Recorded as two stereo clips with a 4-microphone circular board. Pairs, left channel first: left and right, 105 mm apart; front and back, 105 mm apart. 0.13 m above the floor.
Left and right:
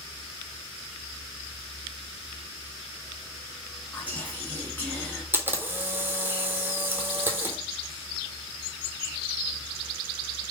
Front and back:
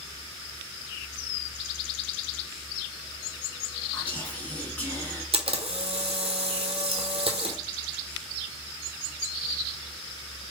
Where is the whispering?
50° left, 1.4 m.